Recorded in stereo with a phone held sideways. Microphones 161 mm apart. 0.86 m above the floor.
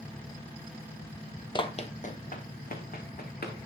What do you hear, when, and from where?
1.6 s running footsteps: 30° left (ahead or behind), 1.0 m; by 3.6 s 65° left (ahead or behind), 3 m